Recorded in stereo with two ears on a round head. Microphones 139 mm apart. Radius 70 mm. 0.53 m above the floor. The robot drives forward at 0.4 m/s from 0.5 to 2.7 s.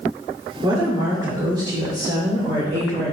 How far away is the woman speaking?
About 1.7 m.